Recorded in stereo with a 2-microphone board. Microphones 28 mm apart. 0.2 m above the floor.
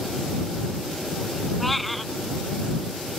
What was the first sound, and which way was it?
A cat meowing, 5° left (ahead or behind).